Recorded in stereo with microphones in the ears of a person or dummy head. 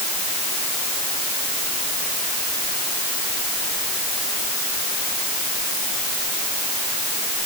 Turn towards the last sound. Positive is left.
No sound to turn to.